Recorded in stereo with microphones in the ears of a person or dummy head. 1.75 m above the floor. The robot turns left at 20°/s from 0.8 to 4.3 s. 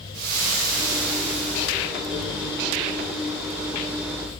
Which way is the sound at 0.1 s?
50° right (ahead or behind).